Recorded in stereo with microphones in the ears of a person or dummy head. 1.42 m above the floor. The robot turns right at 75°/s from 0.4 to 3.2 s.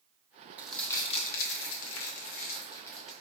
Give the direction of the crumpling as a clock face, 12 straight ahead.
12 o'clock.